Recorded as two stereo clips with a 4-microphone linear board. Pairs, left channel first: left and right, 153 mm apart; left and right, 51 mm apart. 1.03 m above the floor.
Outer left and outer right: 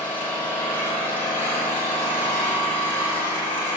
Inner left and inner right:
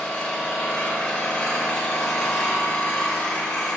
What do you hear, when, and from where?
0.0 s an engine running: 15° left (ahead or behind), 3.5 m